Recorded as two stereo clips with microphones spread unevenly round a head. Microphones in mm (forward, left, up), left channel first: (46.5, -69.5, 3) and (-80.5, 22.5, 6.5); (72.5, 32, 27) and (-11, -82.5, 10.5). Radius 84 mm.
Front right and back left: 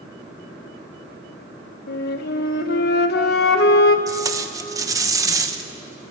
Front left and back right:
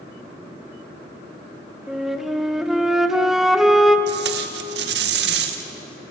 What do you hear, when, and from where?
1.9 s a flute: 35° right, 1.2 m
4.1 s tape being pulled: 150° right, 1.5 m